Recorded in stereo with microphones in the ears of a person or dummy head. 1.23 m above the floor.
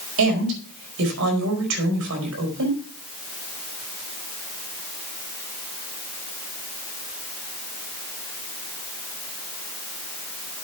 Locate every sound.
0.2 s a woman speaking: 75° right (ahead or behind), 5 m